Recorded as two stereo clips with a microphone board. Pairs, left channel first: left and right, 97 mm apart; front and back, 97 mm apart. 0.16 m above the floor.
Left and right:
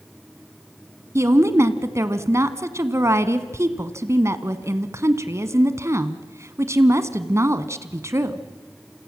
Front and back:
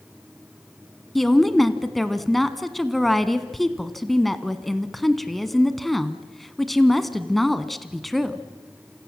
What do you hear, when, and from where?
1.1 s a woman speaking: 90° right, 1.2 m